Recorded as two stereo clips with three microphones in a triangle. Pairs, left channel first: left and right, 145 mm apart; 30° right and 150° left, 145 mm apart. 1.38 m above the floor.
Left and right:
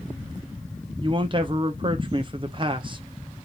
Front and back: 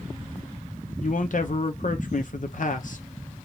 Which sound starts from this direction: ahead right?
A man speaking, at 1.0 s.